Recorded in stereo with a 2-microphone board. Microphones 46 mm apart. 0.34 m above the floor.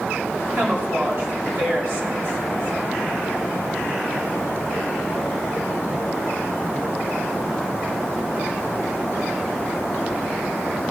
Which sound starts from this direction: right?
A woman speaking, at 0.6 s.